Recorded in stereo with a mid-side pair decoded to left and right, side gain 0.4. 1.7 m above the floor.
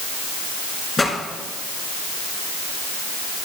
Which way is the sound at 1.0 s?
30° left.